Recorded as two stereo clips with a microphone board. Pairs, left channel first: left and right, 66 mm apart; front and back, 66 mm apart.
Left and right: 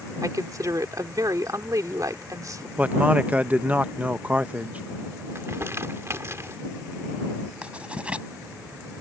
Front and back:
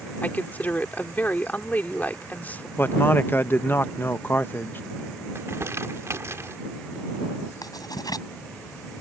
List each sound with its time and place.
0.2 s a woman speaking: 65° right
2.8 s a man speaking: 35° right
5.3 s crumpling: 135° right
7.6 s writing: 15° right